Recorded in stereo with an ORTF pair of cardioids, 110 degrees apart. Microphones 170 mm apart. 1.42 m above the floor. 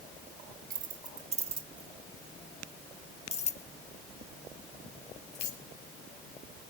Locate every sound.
0.7 s keys jangling: 50° right, 1.9 m; by 5.6 s 65° left, 3 m